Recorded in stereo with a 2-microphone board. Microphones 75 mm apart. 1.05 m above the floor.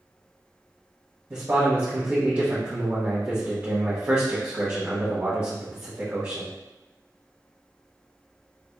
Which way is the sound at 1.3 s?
30° right (ahead or behind).